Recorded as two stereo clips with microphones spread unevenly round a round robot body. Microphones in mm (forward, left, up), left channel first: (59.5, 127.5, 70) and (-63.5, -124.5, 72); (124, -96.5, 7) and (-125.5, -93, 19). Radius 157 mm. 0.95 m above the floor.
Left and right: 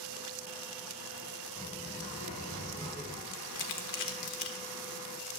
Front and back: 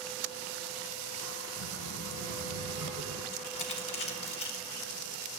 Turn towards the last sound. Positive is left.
turn(degrees=40)